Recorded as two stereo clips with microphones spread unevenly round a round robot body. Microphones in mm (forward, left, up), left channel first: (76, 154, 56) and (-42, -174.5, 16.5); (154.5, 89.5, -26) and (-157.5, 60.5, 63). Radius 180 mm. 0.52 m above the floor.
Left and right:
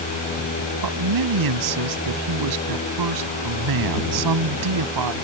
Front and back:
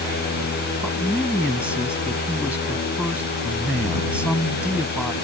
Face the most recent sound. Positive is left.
turn(degrees=-85)